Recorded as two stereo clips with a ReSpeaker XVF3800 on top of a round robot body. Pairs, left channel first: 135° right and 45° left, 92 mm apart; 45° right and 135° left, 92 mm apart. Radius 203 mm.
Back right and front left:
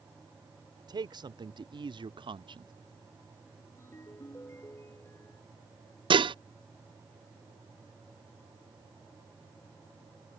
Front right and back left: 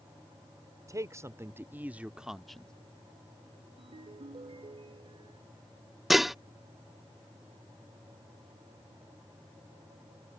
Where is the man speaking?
80° left; by 2.7 s 35° left.